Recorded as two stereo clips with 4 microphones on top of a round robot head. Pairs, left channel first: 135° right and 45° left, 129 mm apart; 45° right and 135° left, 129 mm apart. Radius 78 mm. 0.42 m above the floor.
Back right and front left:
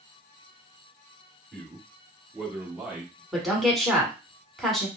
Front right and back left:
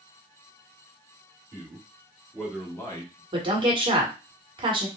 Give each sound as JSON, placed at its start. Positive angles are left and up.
{"t": 1.5, "sound": "a man speaking", "azimuth_deg": 140, "distance_m": 1.3}
{"t": 3.3, "sound": "a woman speaking", "azimuth_deg": 140, "distance_m": 1.4}